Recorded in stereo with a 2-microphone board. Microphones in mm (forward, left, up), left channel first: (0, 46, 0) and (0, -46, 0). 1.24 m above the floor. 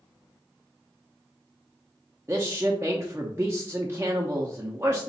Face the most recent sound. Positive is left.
turn(degrees=-25)  # may be behind; listen again after turning